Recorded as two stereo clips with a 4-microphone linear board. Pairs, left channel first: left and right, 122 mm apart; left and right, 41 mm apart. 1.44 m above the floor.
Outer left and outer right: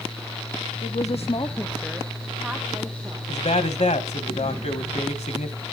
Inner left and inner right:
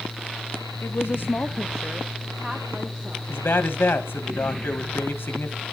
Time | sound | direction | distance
0.8 | a woman speaking | 75° left (ahead or behind) | 0.8 m
3.3 | a man speaking | 75° left (ahead or behind) | 1.6 m